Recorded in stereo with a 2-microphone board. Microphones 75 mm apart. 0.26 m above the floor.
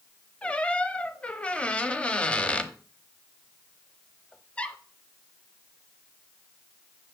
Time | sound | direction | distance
0.4 | a squeak | 15° left (ahead or behind) | 0.7 m